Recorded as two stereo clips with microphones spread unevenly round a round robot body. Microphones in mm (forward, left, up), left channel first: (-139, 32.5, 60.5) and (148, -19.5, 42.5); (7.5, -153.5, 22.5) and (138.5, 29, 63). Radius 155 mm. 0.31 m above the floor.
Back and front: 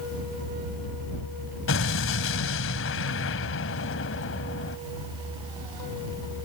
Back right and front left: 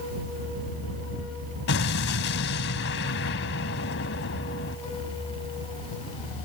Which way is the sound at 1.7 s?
150° right.